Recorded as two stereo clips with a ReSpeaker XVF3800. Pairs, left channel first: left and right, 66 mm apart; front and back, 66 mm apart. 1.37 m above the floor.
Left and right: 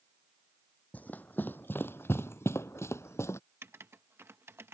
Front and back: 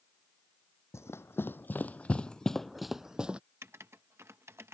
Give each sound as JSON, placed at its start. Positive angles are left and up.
{"t": 0.9, "sound": "running footsteps", "azimuth_deg": 30}
{"t": 3.6, "sound": "writing", "azimuth_deg": -135}